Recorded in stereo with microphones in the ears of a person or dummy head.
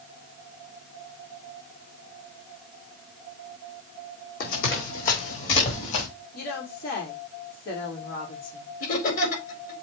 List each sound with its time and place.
4.4 s running footsteps: 50° left (ahead or behind), 4 m; by 6.1 s 40° left (ahead or behind), 4.5 m
6.3 s a woman speaking: 55° left (ahead or behind), 3.5 m
8.8 s laughter: 45° left (ahead or behind), 4.5 m